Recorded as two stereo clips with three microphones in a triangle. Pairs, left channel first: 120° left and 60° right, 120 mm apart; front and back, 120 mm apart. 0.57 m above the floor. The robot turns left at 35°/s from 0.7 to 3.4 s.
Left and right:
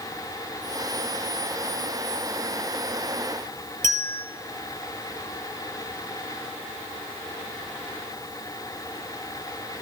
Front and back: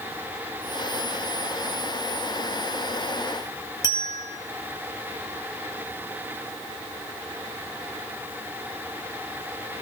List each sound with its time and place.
3.8 s a bell: 55° right, 2.5 m